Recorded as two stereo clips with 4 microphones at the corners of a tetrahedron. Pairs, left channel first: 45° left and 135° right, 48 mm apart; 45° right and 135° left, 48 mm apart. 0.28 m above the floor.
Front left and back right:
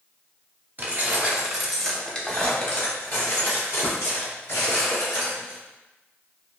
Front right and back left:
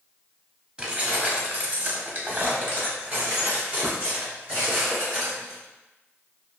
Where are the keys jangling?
160° right, 0.8 m; by 5.6 s 70° left, 2.5 m.